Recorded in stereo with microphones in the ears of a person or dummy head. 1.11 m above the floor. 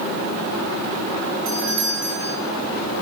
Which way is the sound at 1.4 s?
65° right (ahead or behind).